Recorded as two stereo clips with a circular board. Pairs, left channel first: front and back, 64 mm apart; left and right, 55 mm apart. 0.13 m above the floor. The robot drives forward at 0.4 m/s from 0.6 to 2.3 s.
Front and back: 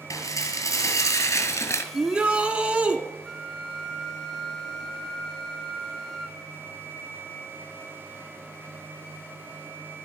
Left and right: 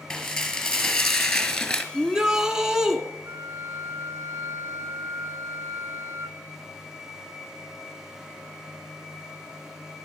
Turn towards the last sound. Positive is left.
turn(degrees=-85)